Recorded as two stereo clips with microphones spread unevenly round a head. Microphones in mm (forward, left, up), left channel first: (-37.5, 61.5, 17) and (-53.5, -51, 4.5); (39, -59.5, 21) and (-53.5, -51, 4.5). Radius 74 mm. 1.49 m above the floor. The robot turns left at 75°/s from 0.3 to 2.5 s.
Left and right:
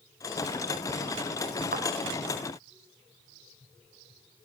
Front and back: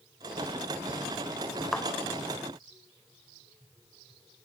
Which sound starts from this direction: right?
A thud, at 1.7 s.